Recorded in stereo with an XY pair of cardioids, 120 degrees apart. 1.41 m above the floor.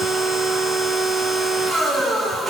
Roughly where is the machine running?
Ahead right.